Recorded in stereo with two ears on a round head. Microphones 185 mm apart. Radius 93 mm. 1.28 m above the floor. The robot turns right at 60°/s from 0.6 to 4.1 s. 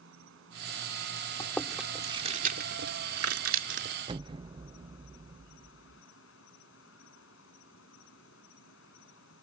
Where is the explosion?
25° right (ahead or behind).